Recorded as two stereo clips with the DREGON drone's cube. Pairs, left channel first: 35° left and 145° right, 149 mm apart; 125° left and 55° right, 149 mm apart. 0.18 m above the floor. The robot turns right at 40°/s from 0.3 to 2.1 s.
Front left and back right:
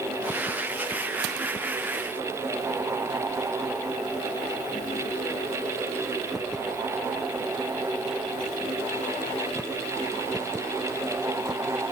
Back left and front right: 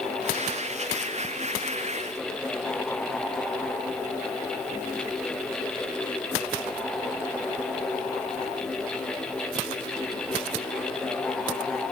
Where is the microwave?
No microwave in this recording.